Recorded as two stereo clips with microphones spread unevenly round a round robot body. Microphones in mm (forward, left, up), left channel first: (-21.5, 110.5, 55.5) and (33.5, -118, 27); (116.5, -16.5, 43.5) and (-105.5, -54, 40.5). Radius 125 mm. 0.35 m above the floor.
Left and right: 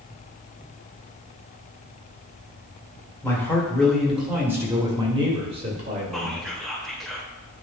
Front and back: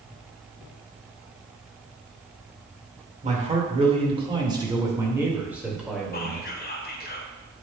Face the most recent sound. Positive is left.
turn(degrees=5)